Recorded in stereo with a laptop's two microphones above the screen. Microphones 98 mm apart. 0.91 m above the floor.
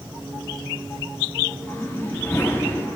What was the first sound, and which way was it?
A whoosh, 25° left (ahead or behind).